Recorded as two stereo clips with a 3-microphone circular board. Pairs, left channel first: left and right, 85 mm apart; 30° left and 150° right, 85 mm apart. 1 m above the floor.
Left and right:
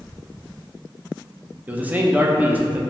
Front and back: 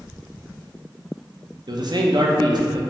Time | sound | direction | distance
1.7 | a man speaking | 160° right | 0.5 m